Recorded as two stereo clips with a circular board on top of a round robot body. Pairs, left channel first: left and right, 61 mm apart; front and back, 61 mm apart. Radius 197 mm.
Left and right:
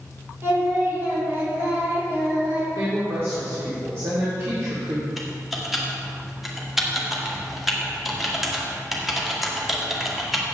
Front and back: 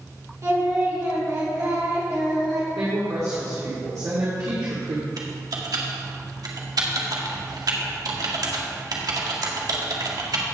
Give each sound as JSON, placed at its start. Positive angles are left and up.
{"t": 0.4, "sound": "singing", "azimuth_deg": -140, "distance_m": 3.0}
{"t": 2.8, "sound": "a woman speaking", "azimuth_deg": -140, "distance_m": 2.5}
{"t": 5.2, "sound": "typing on a keyboard", "azimuth_deg": 180, "distance_m": 2.0}